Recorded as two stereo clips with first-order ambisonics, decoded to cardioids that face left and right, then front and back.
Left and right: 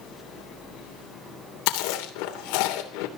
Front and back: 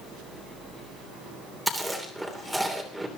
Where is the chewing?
95° left, 3 m.